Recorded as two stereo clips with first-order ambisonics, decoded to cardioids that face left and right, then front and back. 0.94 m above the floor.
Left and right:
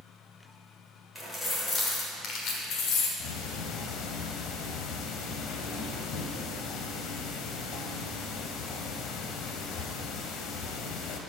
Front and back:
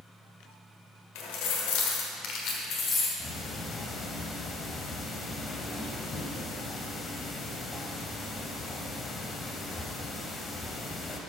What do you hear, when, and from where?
1.1 s keys jangling: 5° left, 2 m; by 3.1 s 65° left, 2 m
3.2 s ticking: 70° left, 1.1 m